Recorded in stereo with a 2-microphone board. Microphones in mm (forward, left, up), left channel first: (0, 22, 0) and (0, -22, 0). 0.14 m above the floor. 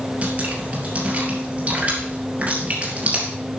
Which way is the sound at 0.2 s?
35° right (ahead or behind).